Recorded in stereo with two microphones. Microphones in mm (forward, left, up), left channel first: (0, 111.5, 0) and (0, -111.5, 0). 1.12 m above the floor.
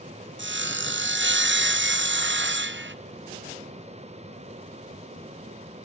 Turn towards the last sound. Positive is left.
turn(degrees=-55)  # may be behind; listen again after turning